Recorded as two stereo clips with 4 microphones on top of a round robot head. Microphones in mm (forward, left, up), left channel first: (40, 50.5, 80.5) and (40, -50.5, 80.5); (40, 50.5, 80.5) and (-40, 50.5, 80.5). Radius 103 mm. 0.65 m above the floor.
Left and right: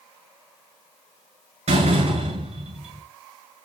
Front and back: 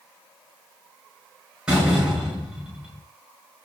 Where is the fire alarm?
No fire alarm in this recording.